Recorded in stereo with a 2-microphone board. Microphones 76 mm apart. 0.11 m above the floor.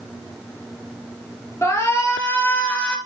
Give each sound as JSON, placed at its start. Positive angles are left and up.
{"t": 1.6, "sound": "a shout", "side_deg": 35, "distance_m": 2.5}